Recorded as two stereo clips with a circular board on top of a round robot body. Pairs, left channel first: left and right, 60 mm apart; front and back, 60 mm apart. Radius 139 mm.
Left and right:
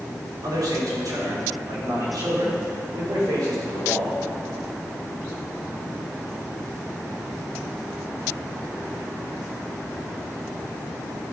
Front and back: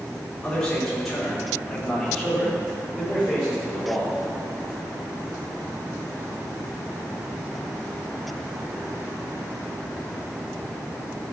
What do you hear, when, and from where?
0.4 s a man speaking: 80° right, 4 m; by 4.1 s 100° right, 6.5 m